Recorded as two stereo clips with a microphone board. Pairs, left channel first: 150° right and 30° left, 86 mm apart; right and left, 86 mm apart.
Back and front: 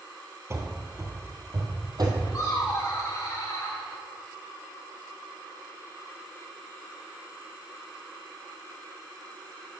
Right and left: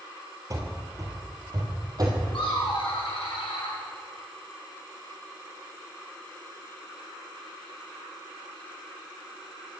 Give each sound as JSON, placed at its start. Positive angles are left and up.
{"t": 0.5, "sound": "running footsteps", "azimuth_deg": 75, "distance_m": 1.6}
{"t": 2.3, "sound": "laughter", "azimuth_deg": -95, "distance_m": 1.5}